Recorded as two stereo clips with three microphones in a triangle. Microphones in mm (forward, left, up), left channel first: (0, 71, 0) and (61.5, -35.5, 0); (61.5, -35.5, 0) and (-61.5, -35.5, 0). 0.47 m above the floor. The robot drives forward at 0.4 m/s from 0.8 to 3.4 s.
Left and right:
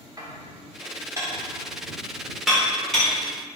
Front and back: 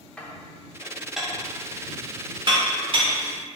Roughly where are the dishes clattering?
Right.